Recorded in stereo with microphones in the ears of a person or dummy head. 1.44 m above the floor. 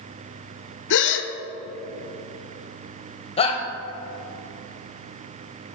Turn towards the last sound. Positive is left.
turn(degrees=35)  # may be behind; listen again after turning